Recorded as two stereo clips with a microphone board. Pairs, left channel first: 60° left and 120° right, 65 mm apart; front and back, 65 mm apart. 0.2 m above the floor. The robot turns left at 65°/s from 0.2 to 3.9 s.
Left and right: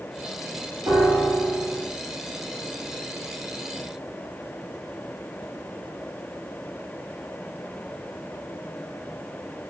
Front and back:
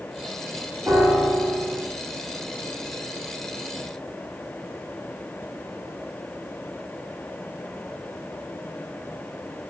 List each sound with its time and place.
0.9 s a piano: 130° right, 3 m; by 1.9 s 165° left, 3 m